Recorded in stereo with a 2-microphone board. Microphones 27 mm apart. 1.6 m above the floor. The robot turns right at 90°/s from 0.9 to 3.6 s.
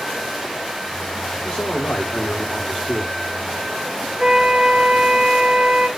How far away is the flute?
About 0.7 m.